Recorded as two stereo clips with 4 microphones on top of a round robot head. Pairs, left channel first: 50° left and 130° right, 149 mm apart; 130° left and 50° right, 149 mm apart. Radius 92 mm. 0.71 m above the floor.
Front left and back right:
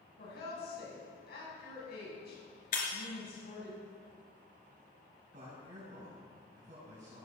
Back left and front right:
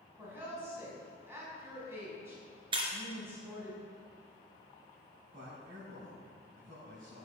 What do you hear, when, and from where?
0.2 s a woman speaking: 30° left, 7 m
2.7 s breaking glass: 10° left, 3 m
5.3 s a man speaking: 90° right, 5.5 m